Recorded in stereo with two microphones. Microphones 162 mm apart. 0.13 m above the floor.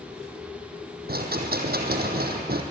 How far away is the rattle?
About 2.5 m.